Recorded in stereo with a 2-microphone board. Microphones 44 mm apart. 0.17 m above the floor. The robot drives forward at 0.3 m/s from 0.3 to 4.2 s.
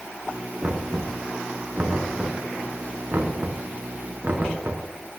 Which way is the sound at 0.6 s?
45° right (ahead or behind).